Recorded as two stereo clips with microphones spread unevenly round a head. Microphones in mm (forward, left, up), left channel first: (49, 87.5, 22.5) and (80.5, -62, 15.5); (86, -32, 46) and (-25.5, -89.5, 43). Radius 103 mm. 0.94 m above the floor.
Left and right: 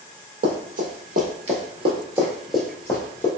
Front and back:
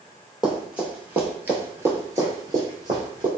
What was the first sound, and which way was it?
Running footsteps, 70° right.